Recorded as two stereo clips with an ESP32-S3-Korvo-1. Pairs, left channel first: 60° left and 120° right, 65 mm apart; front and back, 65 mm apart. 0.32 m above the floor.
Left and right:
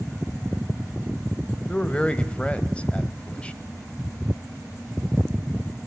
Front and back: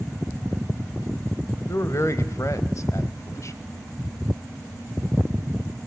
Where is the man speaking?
5° right, 1.2 m.